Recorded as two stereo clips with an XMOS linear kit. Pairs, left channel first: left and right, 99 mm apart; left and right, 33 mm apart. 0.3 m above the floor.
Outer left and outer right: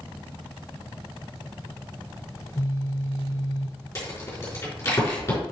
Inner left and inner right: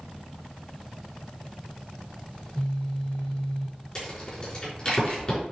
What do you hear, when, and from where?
2.3 s a phone buzzing: 35° left (ahead or behind), 1.3 m
4.0 s a rattle: 25° left (ahead or behind), 4 m